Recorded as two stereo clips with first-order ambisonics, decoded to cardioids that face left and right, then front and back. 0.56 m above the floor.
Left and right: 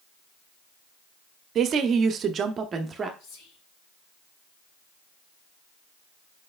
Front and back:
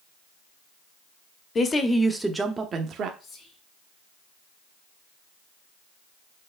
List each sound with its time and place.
1.6 s a woman speaking: 55° right, 0.8 m; by 3.1 s 155° right, 0.8 m
3.2 s whispering: 70° left, 2.5 m